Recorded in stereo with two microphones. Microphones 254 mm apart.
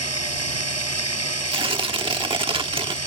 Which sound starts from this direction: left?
Running water, at 0.0 s.